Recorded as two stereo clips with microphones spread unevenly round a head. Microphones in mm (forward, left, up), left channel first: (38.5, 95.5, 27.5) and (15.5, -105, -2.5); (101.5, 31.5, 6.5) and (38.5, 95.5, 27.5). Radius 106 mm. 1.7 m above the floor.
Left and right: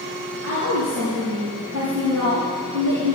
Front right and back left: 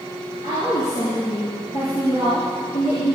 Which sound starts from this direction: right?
A woman speaking, at 0.4 s.